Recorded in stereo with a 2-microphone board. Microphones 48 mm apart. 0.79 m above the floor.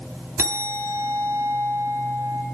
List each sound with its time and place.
0.4 s a bell: 55° right (ahead or behind), 1.9 m